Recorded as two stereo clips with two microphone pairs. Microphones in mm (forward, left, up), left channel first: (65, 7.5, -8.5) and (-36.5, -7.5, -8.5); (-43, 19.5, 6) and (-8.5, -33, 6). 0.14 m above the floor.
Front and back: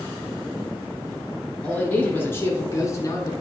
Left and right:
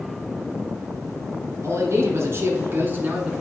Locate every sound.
1.6 s a man speaking: 65° right, 2 m; by 3.3 s 5° right, 1.7 m